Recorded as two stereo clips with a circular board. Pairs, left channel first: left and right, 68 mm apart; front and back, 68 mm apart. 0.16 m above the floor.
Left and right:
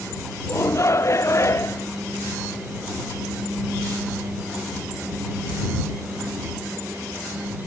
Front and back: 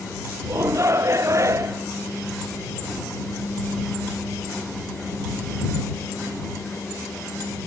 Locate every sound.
0.5 s a shout: 135° left